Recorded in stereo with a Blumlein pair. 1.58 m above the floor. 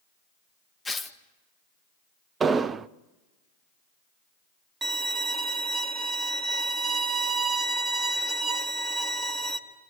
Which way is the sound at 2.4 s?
20° right.